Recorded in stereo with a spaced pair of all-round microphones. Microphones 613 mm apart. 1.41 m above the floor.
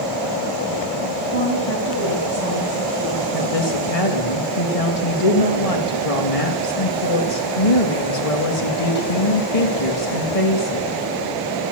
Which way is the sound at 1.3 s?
85° left.